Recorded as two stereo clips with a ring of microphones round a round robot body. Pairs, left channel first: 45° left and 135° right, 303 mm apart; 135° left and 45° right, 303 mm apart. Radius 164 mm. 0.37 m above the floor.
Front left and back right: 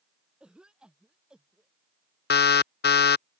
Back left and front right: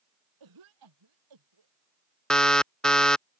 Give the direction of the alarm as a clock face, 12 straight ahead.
10 o'clock.